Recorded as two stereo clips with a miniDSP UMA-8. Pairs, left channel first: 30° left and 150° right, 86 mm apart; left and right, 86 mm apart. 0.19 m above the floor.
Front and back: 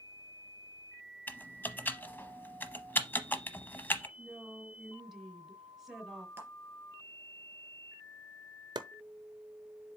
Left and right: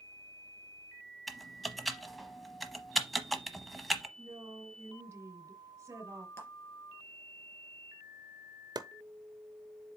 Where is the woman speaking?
70° right, 1.5 m.